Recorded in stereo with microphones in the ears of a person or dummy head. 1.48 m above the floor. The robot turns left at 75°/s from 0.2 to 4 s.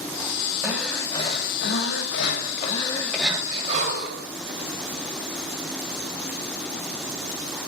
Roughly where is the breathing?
Behind.